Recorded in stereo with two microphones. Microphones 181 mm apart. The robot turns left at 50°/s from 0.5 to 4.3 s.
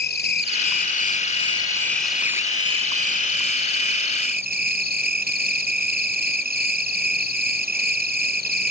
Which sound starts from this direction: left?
An insect, at 0.0 s.